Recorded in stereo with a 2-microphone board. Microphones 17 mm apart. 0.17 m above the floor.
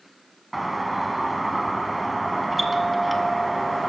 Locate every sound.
0.5 s a doorbell: 5° right (ahead or behind), 1.5 m